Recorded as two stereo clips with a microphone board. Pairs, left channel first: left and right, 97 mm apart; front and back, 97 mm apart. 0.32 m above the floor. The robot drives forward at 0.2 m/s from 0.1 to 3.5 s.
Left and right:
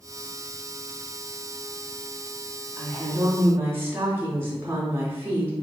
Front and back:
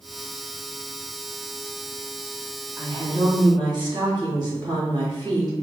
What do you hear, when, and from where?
2.8 s a woman speaking: 150° right, 1.9 m